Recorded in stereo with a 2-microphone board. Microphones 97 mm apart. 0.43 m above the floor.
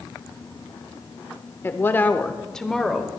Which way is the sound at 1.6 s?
25° left (ahead or behind).